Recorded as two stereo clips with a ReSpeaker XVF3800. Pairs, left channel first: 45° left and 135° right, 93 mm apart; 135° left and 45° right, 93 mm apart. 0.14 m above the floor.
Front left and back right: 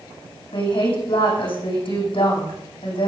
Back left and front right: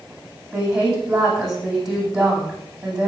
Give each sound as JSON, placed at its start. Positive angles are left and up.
{"t": 0.5, "sound": "a woman speaking", "azimuth_deg": 35, "distance_m": 7.5}